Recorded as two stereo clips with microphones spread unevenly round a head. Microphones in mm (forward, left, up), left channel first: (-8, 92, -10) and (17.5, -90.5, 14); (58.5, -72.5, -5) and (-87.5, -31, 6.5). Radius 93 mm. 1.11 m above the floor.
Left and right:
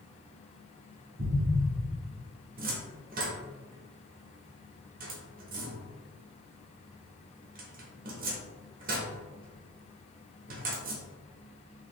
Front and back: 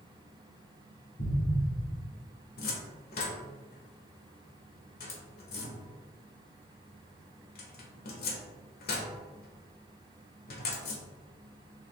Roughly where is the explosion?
Ahead.